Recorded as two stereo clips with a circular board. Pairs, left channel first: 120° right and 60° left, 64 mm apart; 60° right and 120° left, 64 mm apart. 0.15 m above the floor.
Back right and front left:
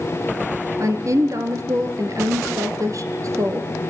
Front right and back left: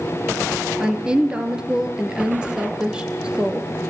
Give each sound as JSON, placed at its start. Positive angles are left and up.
{"t": 0.8, "sound": "a woman speaking", "azimuth_deg": 45, "distance_m": 3.0}